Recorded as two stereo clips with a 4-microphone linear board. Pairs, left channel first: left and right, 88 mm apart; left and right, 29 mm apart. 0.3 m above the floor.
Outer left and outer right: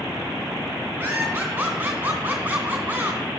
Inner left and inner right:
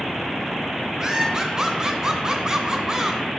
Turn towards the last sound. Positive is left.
turn(degrees=-15)  # may be behind; listen again after turning